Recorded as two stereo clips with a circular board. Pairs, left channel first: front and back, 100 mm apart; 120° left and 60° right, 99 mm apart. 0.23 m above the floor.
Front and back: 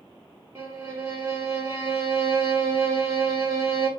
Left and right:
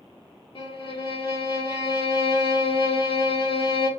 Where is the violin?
120° left, 1.2 m.